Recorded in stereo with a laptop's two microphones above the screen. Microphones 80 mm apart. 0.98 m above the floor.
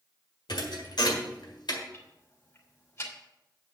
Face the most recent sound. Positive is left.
turn(degrees=35)  # may be behind; listen again after turning